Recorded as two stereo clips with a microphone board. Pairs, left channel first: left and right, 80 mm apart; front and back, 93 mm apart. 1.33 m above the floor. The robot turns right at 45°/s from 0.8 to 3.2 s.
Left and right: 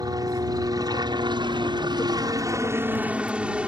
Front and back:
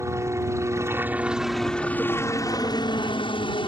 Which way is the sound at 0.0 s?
125° right.